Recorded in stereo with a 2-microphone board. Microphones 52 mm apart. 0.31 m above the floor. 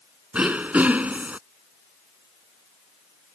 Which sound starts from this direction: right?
Throat clearing, at 0.3 s.